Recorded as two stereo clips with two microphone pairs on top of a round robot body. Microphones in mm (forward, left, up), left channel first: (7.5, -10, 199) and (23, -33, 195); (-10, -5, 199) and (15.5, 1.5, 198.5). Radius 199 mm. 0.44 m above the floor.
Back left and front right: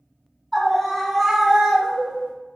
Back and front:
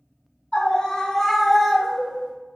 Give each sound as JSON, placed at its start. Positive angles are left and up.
{"t": 0.5, "sound": "a scream", "azimuth_deg": -150, "distance_m": 0.9}